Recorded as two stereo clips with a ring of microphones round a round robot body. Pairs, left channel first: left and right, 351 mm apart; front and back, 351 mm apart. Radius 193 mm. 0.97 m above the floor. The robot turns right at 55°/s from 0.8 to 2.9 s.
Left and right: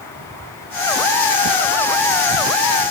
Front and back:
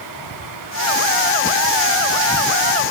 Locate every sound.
Only background noise.